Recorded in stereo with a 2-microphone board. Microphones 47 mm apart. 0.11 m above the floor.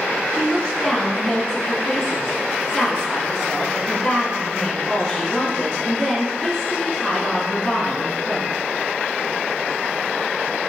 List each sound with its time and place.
0.3 s a woman speaking: 10° left (ahead or behind), 1.1 m